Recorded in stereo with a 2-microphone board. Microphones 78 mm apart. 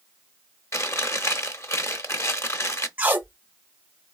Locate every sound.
0.7 s chewing: 40° left (ahead or behind), 0.8 m
3.0 s tape being pulled: 20° right (ahead or behind), 0.7 m